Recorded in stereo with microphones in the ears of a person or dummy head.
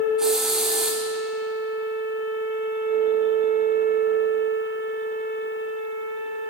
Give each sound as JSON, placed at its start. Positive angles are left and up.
{"t": 0.2, "sound": "a hiss", "side_deg": -5, "distance_m": 1.5}